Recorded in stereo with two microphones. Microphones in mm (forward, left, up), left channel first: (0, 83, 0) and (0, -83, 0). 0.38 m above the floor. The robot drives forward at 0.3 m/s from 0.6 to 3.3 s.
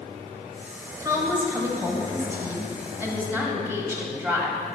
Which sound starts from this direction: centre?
A woman speaking, at 1.0 s.